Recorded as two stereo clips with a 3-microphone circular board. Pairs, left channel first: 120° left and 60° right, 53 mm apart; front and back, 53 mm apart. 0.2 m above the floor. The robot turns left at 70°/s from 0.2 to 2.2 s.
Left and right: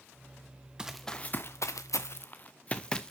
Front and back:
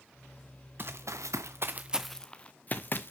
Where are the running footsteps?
135° right, 1.2 m; by 3.1 s 40° left, 1.2 m.